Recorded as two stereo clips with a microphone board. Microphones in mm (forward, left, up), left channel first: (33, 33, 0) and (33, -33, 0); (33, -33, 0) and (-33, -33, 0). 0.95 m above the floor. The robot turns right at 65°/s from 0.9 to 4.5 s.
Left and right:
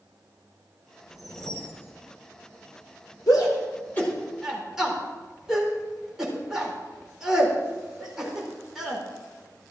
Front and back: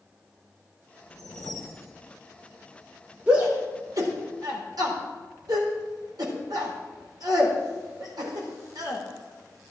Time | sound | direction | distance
1.1 | a whoosh | 10° right | 1.9 m
3.3 | a shout | 110° left | 4 m